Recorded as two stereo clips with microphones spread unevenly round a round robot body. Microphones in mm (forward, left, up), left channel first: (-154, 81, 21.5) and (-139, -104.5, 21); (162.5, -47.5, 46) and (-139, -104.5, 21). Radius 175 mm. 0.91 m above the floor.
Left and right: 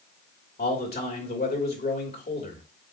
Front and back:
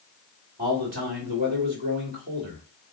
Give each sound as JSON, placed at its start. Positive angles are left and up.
{"t": 0.6, "sound": "a man speaking", "azimuth_deg": 125, "distance_m": 2.5}